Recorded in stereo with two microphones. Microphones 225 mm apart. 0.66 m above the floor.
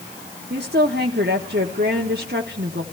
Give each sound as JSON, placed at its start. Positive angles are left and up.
{"t": 0.5, "sound": "a woman speaking", "side_deg": -50, "distance_m": 1.3}